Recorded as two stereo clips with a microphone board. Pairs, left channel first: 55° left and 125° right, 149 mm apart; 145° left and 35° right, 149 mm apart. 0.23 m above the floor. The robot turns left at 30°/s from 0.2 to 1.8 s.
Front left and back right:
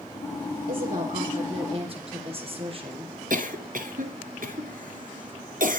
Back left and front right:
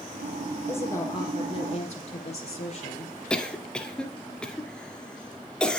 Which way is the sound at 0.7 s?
140° right.